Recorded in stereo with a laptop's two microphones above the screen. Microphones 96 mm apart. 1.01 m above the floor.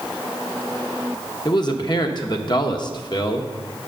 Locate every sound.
1.4 s a man speaking: 45° left (ahead or behind), 0.9 m